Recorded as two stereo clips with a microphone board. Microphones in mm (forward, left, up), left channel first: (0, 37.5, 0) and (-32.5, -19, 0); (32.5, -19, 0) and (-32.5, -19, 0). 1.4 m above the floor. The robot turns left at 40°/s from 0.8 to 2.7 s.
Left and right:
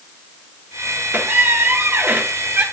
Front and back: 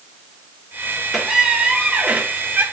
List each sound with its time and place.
1.1 s a squeak: 100° right, 1.0 m; by 2.6 s 160° right, 1.0 m